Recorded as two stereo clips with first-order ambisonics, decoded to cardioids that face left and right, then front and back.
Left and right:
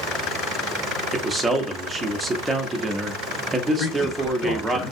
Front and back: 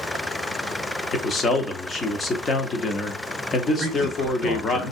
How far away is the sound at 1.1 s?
About 0.6 m.